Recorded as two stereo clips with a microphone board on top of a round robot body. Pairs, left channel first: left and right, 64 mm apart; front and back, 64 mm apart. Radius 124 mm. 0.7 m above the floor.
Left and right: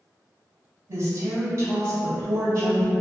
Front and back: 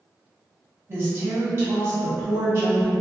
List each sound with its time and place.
0.9 s a woman speaking: 130° right, 1.6 m